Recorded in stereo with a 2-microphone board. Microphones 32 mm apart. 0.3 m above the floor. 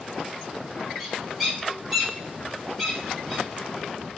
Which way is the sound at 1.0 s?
5° right (ahead or behind).